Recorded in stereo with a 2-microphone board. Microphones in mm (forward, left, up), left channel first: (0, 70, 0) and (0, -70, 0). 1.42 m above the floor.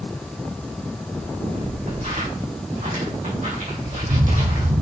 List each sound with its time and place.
1.1 s footsteps: 55° right (ahead or behind), 4.5 m; by 4.8 s 70° right (ahead or behind), 3.5 m